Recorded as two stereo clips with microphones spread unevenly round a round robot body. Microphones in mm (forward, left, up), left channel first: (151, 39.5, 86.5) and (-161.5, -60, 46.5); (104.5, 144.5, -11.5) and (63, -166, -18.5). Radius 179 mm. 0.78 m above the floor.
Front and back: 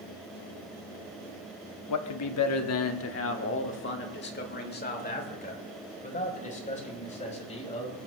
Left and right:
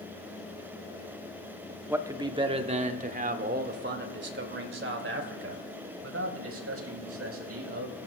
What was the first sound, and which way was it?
A man speaking, 15° right.